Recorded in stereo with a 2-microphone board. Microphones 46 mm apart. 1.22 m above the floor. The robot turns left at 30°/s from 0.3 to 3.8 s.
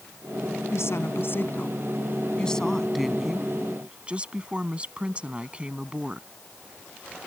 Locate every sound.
0.7 s a woman speaking: 70° left; by 6.3 s 25° right